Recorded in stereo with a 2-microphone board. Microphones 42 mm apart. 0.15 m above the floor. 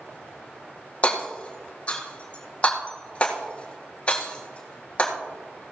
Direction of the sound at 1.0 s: 30° left (ahead or behind).